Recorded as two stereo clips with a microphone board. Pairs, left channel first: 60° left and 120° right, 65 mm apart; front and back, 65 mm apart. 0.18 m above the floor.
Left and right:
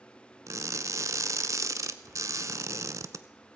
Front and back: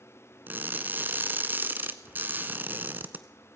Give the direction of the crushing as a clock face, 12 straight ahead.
4 o'clock.